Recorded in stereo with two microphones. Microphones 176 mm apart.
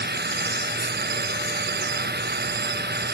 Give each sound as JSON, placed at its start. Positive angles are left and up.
{"t": 0.0, "sound": "running water", "side_deg": -70}